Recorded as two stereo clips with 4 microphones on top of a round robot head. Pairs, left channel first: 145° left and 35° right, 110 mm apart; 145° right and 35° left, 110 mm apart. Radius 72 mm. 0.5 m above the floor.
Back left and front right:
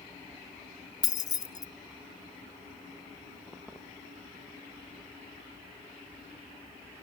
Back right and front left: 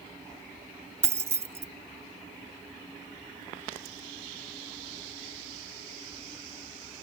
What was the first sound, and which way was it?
Keys jangling, 95° left.